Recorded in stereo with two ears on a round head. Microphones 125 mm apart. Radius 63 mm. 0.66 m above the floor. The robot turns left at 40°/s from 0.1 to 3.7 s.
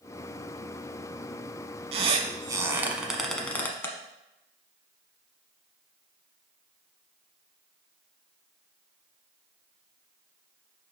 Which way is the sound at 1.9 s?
45° right (ahead or behind).